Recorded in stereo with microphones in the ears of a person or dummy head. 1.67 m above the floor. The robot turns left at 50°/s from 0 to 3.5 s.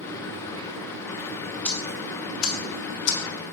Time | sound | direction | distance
1.6 | ticking | 5° left (ahead or behind) | 0.7 m